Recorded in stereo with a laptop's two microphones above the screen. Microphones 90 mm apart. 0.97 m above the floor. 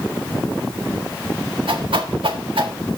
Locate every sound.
1.7 s a whoosh: 80° right, 1.5 m